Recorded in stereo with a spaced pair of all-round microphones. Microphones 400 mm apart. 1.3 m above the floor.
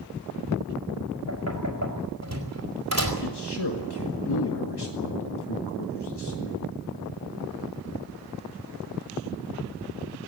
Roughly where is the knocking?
Right.